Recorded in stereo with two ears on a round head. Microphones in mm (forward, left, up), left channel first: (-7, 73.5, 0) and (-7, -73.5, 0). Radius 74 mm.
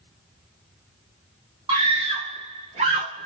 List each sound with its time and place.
1.7 s a scream: 30° right (ahead or behind), 1.1 m; by 3.3 s 35° right (ahead or behind), 1.0 m